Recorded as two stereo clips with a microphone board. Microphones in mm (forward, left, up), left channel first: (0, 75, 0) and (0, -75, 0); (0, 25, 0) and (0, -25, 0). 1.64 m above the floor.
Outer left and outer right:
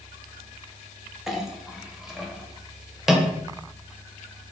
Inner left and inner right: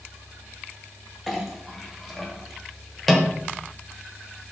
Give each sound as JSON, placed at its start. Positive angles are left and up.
{"t": 1.3, "sound": "a clink", "side_deg": 0, "distance_m": 0.7}